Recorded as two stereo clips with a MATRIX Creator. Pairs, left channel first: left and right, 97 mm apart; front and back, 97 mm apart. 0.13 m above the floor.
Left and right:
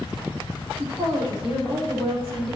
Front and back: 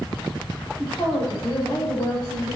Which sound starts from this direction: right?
A woman speaking, at 0.8 s.